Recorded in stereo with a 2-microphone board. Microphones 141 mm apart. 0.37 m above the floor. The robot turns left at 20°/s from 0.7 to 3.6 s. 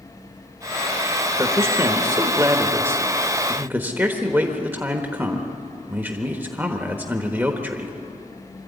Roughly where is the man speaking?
Right.